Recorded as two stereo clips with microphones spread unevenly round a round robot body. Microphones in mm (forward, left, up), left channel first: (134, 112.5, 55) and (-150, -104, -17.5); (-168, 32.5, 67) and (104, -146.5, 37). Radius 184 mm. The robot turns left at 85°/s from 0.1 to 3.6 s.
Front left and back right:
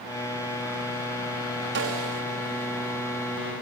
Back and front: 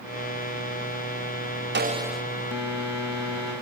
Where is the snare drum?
85° right, 1.2 m; by 2.2 s 130° right, 1.2 m.